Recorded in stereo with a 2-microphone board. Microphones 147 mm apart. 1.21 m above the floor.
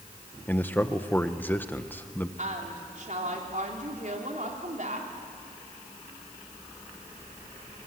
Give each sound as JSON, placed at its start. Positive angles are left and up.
{"t": 0.5, "sound": "a man speaking", "side_deg": 10, "distance_m": 1.0}
{"t": 2.4, "sound": "a woman speaking", "side_deg": -60, "distance_m": 3.5}